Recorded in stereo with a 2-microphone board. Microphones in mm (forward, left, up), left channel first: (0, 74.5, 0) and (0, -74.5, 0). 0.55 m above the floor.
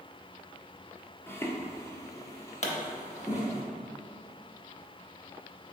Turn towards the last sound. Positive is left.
turn(degrees=45)  # may be behind; listen again after turning